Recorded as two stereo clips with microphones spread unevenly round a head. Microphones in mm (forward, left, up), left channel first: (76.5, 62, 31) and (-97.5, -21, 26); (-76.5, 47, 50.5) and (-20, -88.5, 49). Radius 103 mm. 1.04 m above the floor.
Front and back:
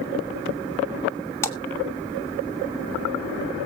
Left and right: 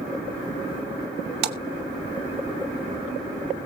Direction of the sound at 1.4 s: 50° right.